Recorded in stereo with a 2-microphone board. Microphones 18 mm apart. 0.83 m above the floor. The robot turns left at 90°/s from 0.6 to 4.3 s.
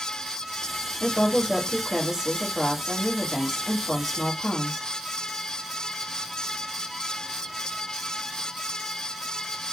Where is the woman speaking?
40° left, 1.7 m; by 4.9 s 105° left, 1.7 m.